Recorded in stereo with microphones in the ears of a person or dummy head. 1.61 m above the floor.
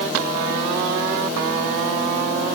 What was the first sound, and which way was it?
Only background noise.